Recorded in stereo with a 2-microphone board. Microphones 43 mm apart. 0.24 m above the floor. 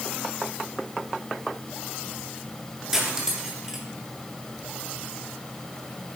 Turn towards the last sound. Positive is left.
turn(degrees=-10)  # may be behind; listen again after turning